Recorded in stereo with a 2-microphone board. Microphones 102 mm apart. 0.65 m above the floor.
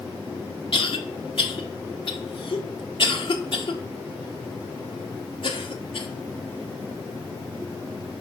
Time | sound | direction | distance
0.7 | a cough | 55° left (ahead or behind) | 1.4 m